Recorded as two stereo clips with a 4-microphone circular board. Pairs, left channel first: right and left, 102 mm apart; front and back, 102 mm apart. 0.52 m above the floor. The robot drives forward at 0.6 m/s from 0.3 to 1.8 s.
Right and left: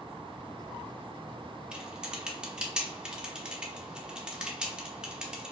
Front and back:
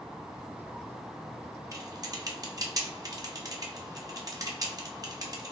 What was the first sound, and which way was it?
Typing on a keyboard, 165° left.